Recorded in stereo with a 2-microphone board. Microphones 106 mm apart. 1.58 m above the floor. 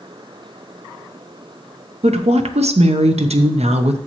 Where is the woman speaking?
75° right (ahead or behind), 0.8 m.